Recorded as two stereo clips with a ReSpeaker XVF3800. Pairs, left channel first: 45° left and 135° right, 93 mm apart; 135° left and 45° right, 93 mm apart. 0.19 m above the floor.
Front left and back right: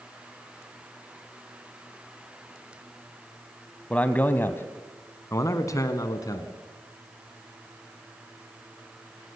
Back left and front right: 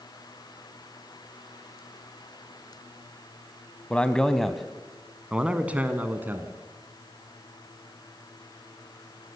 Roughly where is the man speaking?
Left.